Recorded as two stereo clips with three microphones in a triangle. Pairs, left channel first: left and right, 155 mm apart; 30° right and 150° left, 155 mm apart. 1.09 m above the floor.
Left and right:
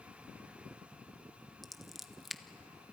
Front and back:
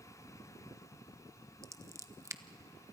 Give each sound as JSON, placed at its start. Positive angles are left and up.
{"t": 1.6, "sound": "scissors", "azimuth_deg": -175, "distance_m": 0.7}